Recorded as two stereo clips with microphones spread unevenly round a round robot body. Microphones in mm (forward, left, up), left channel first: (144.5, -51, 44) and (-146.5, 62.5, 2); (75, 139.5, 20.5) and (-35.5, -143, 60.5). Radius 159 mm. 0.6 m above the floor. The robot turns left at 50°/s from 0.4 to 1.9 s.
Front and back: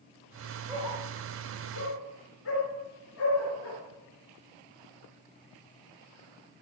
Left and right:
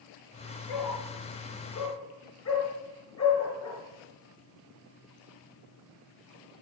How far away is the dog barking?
About 4.5 m.